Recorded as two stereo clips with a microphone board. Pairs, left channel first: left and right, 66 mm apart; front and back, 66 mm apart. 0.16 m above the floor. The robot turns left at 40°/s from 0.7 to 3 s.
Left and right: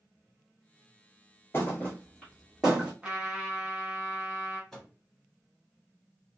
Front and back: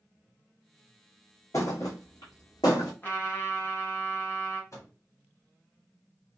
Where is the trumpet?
30° right, 1.3 m.